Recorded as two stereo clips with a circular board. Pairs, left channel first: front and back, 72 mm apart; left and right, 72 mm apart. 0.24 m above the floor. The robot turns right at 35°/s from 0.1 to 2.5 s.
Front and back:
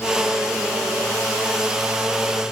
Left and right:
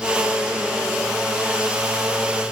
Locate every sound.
Only background noise.